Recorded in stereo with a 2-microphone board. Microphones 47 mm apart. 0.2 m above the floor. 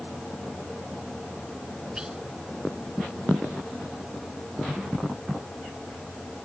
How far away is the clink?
No clink in this recording.